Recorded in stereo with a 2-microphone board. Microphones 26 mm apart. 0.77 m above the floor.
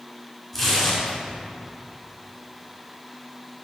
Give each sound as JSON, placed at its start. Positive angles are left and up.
{"t": 0.5, "sound": "tearing paper", "side_deg": 5, "distance_m": 3.5}